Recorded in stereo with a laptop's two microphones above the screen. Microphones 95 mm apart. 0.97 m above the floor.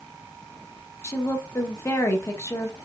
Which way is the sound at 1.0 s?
30° left (ahead or behind).